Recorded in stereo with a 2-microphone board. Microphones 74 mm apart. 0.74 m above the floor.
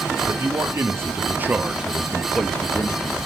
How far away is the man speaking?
About 1.9 m.